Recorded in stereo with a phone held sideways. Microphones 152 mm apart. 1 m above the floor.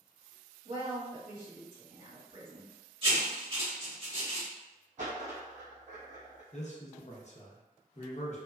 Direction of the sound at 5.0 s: 55° right (ahead or behind).